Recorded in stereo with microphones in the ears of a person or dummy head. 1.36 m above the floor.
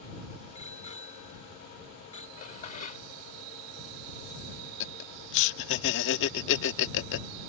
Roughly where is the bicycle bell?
Left.